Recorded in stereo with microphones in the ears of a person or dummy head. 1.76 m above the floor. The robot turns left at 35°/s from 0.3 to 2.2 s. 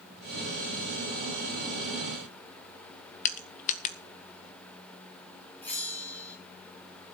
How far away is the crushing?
About 1.3 m.